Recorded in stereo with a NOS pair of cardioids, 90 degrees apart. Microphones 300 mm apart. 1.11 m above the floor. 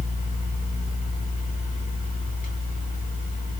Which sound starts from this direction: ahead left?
A fan, at 0.0 s.